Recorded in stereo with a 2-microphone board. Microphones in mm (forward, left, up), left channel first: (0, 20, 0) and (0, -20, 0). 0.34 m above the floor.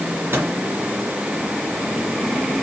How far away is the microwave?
About 3.5 m.